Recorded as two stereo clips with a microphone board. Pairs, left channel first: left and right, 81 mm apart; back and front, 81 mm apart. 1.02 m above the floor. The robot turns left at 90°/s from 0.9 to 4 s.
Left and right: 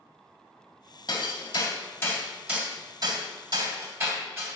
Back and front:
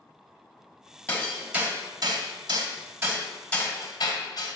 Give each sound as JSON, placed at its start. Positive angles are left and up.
{"t": 1.1, "sound": "hammering", "azimuth_deg": 115, "distance_m": 2.0}